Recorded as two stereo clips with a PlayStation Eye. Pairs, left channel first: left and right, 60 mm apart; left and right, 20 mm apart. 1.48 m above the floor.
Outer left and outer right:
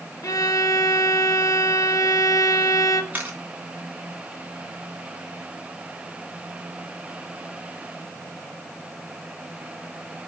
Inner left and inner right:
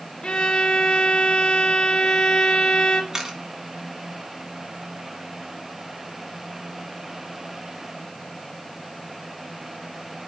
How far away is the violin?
About 1.8 m.